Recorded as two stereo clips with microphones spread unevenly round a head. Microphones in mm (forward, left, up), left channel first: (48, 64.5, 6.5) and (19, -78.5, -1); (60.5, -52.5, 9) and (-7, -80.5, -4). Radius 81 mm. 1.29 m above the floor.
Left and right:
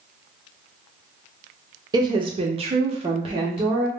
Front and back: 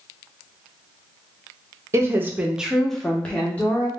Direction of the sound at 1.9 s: 155° right.